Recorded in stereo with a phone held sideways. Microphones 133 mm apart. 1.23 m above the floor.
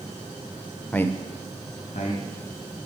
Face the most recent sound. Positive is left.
turn(degrees=60)  # may be behind; listen again after turning